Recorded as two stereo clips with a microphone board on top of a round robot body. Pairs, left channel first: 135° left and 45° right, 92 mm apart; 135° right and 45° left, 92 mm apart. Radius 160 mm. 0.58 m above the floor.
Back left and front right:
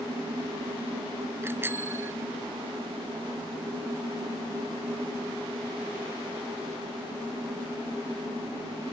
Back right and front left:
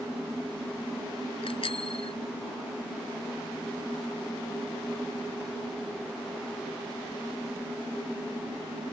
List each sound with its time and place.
1.4 s a bicycle bell: 115° right